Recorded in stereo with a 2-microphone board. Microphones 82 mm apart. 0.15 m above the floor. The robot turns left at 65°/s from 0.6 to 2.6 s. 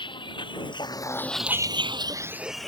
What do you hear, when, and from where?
0.0 s a vehicle: 85° left; by 2.7 s 5° left (ahead or behind)